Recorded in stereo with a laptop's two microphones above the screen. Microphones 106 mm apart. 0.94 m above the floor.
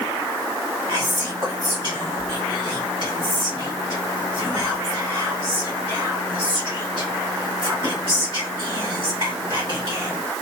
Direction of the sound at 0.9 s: 50° right (ahead or behind).